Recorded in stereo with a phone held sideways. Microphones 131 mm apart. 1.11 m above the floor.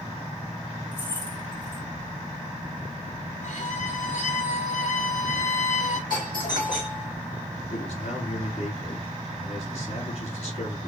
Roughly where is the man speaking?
Left.